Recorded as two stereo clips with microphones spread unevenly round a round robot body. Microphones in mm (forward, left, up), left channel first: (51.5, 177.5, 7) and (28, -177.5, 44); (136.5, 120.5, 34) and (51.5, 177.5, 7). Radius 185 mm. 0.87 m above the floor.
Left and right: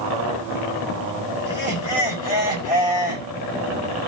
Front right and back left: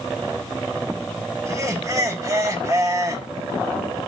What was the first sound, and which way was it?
Laughter, 90° left.